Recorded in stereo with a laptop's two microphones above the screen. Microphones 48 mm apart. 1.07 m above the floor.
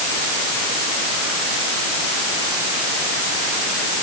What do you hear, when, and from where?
Only background noise.